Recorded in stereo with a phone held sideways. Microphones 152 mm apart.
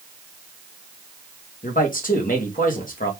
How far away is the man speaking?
About 1.8 m.